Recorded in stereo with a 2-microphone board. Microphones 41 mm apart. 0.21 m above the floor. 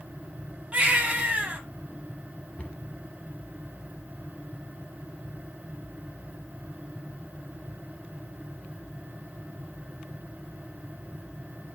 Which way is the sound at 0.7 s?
30° right (ahead or behind).